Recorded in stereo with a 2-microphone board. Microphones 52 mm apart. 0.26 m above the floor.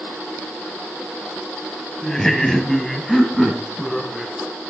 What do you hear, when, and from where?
2.0 s laughter: 10° left (ahead or behind), 1.1 m; by 4.3 s centre (ahead or behind), 2.5 m